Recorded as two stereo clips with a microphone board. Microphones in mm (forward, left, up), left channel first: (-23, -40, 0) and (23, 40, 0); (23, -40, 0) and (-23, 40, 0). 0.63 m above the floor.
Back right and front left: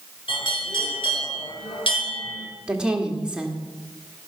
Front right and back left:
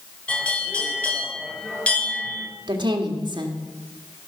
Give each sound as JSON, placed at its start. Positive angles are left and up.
{"t": 0.3, "sound": "a bell", "azimuth_deg": -135, "distance_m": 3.0}
{"t": 2.7, "sound": "a woman speaking", "azimuth_deg": 140, "distance_m": 1.6}